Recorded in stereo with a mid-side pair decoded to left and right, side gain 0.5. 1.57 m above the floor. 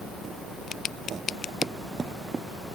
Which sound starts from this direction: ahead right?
Running footsteps, at 1.6 s.